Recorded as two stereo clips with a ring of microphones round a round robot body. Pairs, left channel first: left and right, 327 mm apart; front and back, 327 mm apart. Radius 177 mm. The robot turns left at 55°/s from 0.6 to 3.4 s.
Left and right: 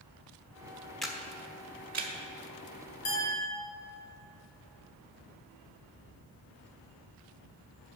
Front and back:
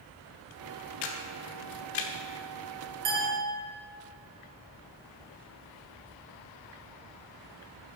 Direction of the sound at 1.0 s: Straight ahead.